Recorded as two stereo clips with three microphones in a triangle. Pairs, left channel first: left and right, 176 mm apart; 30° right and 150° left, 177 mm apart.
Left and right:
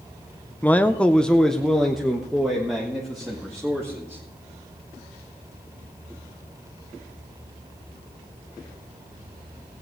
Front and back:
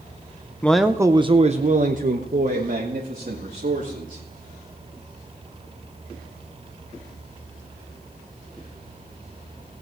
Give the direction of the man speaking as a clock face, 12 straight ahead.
11 o'clock.